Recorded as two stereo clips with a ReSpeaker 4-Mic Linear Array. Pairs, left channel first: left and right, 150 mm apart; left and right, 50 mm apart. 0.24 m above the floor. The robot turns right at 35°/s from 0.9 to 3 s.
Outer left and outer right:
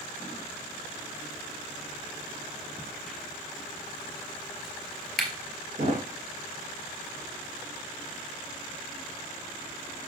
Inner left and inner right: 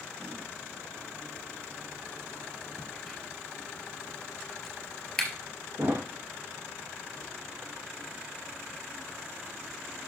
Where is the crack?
10° left (ahead or behind), 3 m; by 5.3 s centre (ahead or behind), 3 m.